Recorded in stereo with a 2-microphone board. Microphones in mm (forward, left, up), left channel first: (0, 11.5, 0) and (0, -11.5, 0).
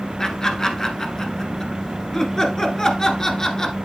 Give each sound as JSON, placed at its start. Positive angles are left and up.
{"t": 0.2, "sound": "laughter", "side_deg": 25, "distance_m": 1.1}